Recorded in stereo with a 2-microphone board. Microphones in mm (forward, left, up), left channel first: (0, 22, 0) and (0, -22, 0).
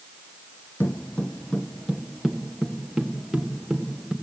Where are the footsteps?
60° left (ahead or behind), 0.7 m; by 4.1 s 5° right (ahead or behind), 3 m.